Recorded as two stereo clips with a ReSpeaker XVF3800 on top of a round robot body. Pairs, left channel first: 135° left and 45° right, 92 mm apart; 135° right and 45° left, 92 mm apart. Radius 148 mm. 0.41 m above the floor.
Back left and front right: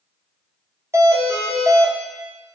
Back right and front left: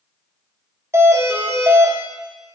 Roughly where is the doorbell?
Ahead.